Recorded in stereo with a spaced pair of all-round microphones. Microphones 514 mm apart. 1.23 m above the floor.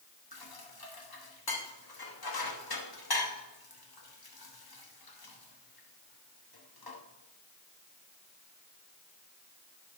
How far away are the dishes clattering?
About 1.1 m.